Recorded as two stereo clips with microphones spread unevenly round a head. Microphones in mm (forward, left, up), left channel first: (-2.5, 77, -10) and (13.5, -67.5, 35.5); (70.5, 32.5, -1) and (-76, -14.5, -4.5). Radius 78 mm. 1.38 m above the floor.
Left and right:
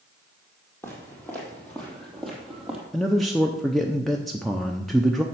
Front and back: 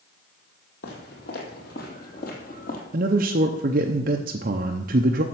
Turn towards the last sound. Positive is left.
turn(degrees=175)